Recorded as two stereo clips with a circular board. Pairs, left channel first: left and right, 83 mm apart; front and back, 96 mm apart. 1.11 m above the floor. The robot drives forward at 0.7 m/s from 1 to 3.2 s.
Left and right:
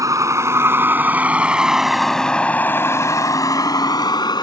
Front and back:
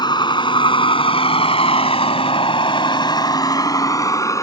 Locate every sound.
0.0 s a vehicle: 40° right; by 4.4 s 55° left